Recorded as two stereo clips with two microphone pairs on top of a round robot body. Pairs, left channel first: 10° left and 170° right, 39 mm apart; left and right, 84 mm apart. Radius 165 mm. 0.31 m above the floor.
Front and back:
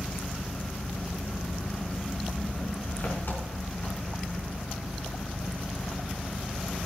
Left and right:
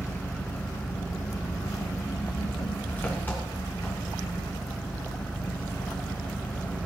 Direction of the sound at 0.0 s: 25° left.